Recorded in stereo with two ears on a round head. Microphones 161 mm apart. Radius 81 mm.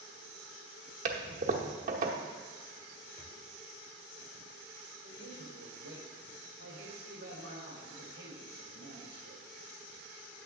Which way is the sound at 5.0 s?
65° right (ahead or behind).